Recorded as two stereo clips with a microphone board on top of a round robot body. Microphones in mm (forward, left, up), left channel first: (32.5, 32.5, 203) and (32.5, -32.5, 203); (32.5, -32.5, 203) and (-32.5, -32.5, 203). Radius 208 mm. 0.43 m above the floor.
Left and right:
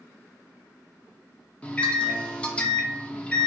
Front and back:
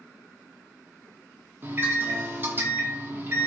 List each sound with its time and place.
1.6 s a microwave: 150° left, 0.7 m